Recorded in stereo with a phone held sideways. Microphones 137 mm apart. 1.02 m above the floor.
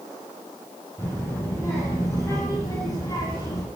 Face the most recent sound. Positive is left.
turn(degrees=30)  # may be behind; listen again after turning